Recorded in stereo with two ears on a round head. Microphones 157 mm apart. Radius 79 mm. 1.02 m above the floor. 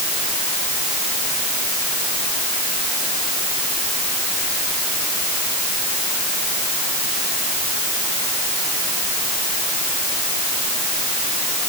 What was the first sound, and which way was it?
Only background noise.